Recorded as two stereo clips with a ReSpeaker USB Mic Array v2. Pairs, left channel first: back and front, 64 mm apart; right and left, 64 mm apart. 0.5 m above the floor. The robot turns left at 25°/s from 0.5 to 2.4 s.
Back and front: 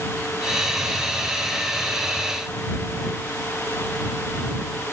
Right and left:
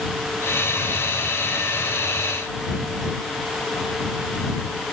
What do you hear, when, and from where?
Only background noise.